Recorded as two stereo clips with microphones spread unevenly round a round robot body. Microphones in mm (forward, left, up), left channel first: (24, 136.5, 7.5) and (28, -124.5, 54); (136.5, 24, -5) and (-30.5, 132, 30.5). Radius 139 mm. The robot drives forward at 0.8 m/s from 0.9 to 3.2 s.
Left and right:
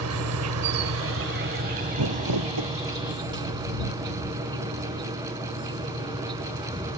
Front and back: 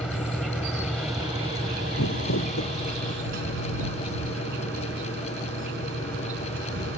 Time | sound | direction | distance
0.0 | an insect | 125° right | ?
2.0 | crumpling | 75° right | ?